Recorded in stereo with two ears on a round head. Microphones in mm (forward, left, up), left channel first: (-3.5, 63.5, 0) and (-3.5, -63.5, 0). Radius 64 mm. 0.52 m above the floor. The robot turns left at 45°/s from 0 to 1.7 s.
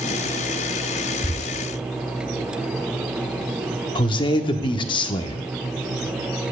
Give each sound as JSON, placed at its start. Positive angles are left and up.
{"t": 1.2, "sound": "tearing paper", "side_deg": 60, "distance_m": 3.0}
{"t": 4.0, "sound": "a man speaking", "side_deg": 35, "distance_m": 0.7}